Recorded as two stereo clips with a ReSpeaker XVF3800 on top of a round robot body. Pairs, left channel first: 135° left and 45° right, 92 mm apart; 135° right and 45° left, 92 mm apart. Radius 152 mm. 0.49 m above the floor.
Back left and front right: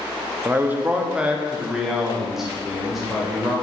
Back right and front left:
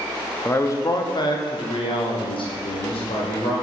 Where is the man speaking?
90° right, 0.8 m; by 3.5 s 135° right, 2.5 m.